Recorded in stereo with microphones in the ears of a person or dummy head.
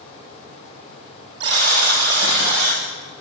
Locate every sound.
1.4 s a buzzer: 65° right (ahead or behind), 8 m